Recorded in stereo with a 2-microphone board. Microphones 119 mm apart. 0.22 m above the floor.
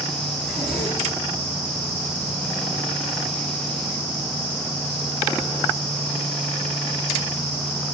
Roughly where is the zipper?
Centre.